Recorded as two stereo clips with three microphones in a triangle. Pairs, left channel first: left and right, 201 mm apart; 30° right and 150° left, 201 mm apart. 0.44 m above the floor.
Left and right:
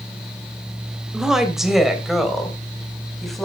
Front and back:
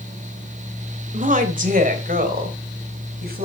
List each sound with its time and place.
1.1 s a woman speaking: 175° right, 2 m; by 3.5 s straight behind, 3 m